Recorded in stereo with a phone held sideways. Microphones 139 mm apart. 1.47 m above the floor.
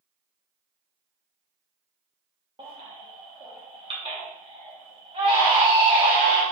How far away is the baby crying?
About 0.9 m.